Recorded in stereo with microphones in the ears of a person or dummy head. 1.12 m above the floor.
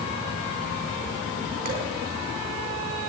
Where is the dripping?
50° right (ahead or behind), 3.5 m.